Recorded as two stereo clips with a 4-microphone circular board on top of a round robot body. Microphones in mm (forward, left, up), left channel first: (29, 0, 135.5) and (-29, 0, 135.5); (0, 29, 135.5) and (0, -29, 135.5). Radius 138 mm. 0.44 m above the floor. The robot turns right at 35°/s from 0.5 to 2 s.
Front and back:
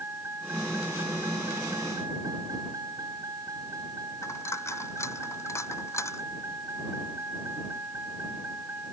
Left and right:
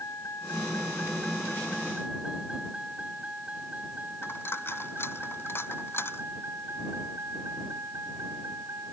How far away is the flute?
No flute in this recording.